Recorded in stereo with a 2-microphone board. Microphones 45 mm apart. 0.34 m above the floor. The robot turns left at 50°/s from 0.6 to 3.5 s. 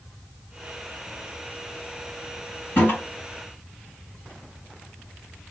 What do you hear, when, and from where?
2.8 s a toilet flushing: 45° left (ahead or behind), 1.9 m